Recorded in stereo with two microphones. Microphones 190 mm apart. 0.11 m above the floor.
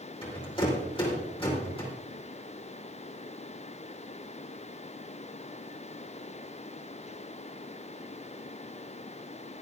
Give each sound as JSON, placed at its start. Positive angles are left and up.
{"t": 0.2, "sound": "a rattle", "side_deg": 30, "distance_m": 4.0}